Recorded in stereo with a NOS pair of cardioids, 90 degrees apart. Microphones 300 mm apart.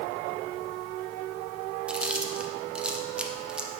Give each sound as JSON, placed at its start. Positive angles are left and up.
{"t": 1.9, "sound": "chewing", "azimuth_deg": -5, "distance_m": 0.8}